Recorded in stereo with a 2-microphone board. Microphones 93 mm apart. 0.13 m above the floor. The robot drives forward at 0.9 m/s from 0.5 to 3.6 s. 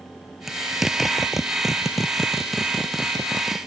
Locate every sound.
0.5 s a zipper: 5° right (ahead or behind); by 3.6 s centre (ahead or behind)